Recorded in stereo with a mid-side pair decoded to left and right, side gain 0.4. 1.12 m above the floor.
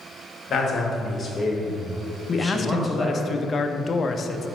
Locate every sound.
0.5 s a man speaking: 50° left, 2 m; by 3.2 s 25° right, 1.7 m
2.3 s a man speaking: 45° left, 0.7 m